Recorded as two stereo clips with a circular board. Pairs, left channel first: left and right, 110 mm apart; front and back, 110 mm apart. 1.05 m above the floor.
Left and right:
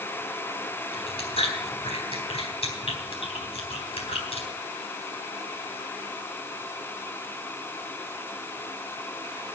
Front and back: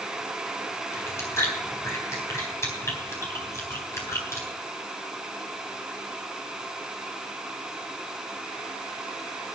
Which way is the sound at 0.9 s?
65° left.